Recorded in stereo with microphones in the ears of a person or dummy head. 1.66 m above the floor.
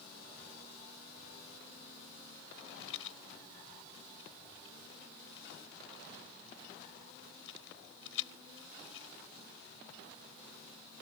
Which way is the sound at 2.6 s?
85° left.